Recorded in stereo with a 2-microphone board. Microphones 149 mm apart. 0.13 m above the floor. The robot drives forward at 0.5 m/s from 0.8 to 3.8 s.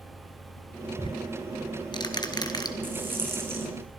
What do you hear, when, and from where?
1.0 s ticking: 30° left (ahead or behind), 2 m; by 2.7 s 25° left (ahead or behind), 2.5 m
2.8 s a rattle: 15° right (ahead or behind), 3.5 m